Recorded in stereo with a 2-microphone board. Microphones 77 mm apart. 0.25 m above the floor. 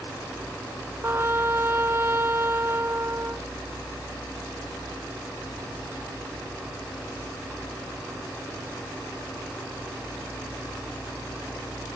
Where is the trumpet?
30° right (ahead or behind).